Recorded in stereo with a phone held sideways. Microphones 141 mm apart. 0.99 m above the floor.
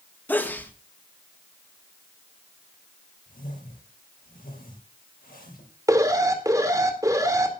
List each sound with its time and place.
0.3 s a sneeze: 10° left (ahead or behind), 1.6 m
3.3 s a whoosh: 85° left, 6 m
5.9 s an alarm: 25° right (ahead or behind), 2.0 m